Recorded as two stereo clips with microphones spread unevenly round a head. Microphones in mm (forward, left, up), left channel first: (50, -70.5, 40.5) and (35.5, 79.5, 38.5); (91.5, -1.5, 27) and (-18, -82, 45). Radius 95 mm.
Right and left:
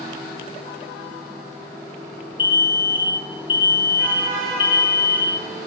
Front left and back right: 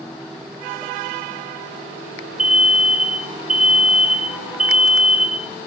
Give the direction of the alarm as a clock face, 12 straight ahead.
2 o'clock.